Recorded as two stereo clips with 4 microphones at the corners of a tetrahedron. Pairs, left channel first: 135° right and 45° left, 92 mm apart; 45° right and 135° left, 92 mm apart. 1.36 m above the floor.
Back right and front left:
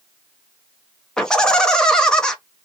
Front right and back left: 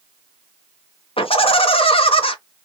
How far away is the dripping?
I don't hear dripping.